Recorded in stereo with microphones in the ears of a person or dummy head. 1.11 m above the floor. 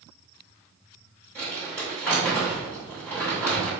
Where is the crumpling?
10° left (ahead or behind), 1.2 m.